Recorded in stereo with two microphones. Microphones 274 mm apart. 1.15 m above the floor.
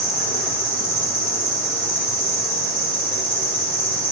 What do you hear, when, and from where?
0.0 s an insect: 30° right (ahead or behind), 0.7 m